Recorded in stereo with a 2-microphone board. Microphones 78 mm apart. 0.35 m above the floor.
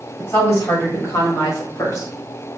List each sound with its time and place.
0.2 s a woman speaking: 40° left (ahead or behind), 1.7 m; by 2.1 s 45° left (ahead or behind), 1.3 m